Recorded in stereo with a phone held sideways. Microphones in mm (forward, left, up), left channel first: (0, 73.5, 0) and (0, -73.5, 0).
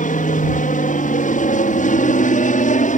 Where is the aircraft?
60° left (ahead or behind).